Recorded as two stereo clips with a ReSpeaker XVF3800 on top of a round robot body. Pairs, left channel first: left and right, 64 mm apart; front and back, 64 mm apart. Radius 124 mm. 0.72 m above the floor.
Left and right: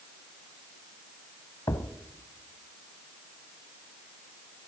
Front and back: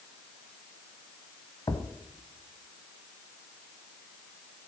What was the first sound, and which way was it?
A thud, 50° left.